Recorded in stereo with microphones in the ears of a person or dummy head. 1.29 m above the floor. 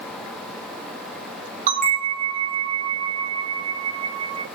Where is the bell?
40° right (ahead or behind), 0.9 m.